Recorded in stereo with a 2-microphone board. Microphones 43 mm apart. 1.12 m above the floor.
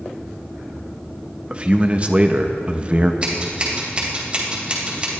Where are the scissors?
30° right (ahead or behind), 3 m.